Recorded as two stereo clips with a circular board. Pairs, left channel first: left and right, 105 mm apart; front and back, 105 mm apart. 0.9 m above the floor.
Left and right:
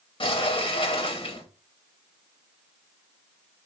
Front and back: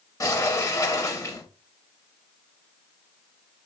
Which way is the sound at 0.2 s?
60° left.